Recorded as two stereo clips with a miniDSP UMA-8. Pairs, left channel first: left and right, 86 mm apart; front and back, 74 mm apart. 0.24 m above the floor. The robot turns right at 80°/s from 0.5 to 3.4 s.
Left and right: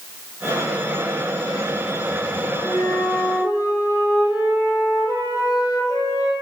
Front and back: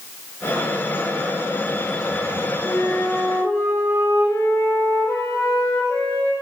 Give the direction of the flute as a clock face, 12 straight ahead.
12 o'clock.